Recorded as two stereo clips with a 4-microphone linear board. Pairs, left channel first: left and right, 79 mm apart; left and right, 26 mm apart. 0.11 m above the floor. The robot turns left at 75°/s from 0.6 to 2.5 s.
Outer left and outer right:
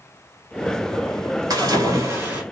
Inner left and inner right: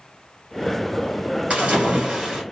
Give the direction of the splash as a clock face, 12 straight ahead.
3 o'clock.